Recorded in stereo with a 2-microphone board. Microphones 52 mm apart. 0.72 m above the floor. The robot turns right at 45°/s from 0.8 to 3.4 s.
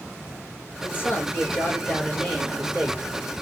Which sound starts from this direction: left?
A man speaking, at 0.8 s.